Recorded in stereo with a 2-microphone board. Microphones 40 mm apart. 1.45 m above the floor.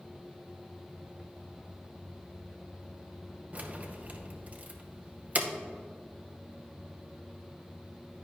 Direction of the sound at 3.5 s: 40° right (ahead or behind).